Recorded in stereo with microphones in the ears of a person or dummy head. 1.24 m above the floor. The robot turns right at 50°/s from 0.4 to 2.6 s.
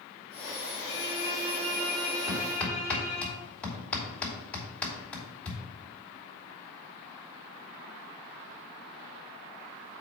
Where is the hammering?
10° right (ahead or behind), 3 m; by 5.6 s 5° left (ahead or behind), 3 m.